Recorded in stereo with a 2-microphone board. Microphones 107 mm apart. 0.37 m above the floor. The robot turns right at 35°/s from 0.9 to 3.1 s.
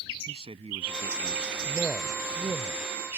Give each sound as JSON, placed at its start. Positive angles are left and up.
{"t": 0.3, "sound": "a man speaking", "azimuth_deg": -85}
{"t": 1.6, "sound": "a man speaking", "side_deg": -25}